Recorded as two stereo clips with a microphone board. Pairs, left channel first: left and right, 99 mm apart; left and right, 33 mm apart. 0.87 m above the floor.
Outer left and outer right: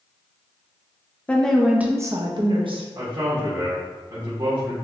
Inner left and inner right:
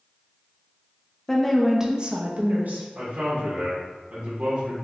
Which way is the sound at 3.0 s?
45° right (ahead or behind).